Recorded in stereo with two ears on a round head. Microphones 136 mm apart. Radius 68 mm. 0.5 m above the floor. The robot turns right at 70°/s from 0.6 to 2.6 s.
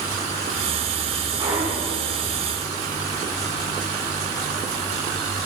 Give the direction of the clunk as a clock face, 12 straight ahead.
1 o'clock.